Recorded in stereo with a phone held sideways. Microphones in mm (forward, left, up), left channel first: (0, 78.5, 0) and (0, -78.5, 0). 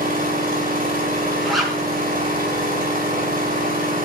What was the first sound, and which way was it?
An engine running, 65° right (ahead or behind).